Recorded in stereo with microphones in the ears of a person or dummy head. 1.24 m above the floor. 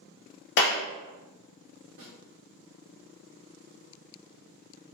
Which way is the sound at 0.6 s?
65° left (ahead or behind).